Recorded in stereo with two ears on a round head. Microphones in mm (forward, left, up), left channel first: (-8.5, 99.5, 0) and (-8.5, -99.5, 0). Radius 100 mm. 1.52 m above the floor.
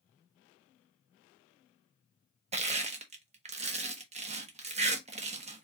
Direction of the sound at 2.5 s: 30° right (ahead or behind).